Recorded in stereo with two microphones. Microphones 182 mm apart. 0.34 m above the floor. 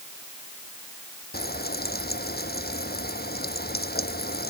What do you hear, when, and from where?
1.3 s frying: 60° left (ahead or behind)